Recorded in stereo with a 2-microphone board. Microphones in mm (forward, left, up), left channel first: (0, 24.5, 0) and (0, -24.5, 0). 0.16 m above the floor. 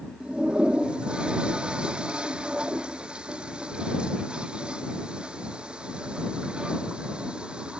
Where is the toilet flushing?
20° right (ahead or behind).